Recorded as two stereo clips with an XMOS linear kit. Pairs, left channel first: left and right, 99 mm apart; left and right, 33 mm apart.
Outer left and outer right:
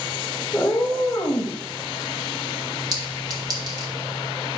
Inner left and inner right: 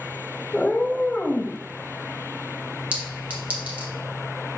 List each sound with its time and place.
0.5 s a cat meowing: 15° left (ahead or behind), 0.9 m; by 1.6 s 30° left (ahead or behind), 1.5 m
2.9 s a clink: 40° right (ahead or behind), 1.5 m